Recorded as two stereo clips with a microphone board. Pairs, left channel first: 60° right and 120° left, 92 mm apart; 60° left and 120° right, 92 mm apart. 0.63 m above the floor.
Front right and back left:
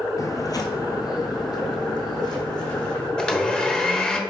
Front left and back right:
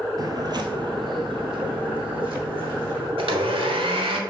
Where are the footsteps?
95° right, 0.8 m; by 3.1 s 100° right, 2.5 m.